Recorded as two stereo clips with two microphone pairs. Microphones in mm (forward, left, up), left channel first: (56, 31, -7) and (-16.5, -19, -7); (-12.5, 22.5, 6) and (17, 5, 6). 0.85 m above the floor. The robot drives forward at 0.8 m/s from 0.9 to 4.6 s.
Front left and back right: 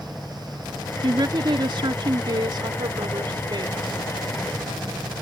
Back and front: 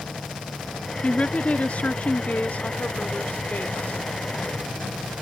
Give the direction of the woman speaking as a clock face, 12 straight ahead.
6 o'clock.